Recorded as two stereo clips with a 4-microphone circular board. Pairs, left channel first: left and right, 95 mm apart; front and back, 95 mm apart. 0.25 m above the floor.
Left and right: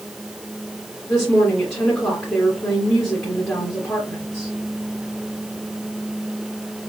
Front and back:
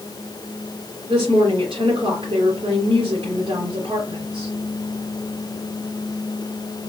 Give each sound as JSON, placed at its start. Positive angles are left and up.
{"t": 1.1, "sound": "a woman speaking", "azimuth_deg": 160, "distance_m": 2.5}